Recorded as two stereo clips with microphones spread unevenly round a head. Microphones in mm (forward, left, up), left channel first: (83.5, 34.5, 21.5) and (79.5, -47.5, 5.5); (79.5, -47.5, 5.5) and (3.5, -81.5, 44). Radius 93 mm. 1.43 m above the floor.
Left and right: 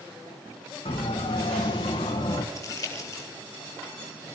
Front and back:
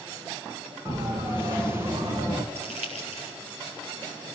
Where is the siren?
125° left, 3 m.